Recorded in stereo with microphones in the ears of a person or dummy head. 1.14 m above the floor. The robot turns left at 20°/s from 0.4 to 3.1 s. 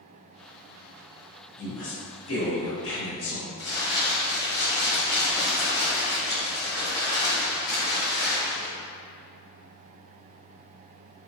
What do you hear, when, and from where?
1.6 s a woman speaking: 120° left, 1.3 m; by 3.5 s 90° left, 1.3 m
3.6 s crumpling: 15° left (ahead or behind), 1.3 m